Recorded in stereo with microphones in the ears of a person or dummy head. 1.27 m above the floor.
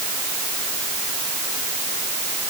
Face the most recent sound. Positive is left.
No sound to turn to.